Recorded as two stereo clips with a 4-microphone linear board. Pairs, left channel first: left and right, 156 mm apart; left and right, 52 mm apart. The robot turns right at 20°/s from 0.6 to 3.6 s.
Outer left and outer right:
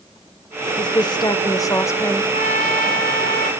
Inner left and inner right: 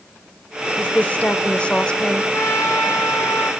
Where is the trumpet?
60° left (ahead or behind), 3 m; by 3.5 s 70° left (ahead or behind), 3 m.